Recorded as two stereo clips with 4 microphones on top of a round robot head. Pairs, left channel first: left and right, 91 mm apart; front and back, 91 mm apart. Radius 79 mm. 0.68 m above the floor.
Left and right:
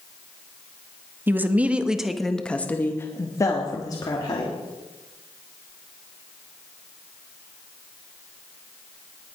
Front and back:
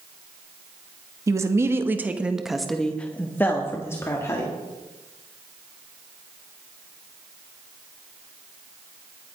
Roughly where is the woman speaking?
Behind right.